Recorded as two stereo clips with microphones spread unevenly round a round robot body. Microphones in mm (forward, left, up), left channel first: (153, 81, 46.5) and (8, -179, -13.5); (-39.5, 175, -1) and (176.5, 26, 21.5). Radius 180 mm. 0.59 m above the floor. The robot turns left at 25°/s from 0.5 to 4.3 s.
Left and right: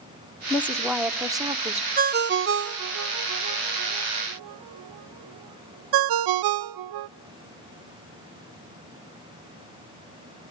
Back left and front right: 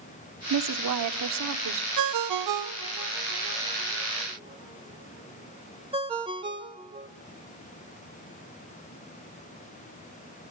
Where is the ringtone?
55° right, 0.5 m; by 7.1 s 110° right, 0.5 m.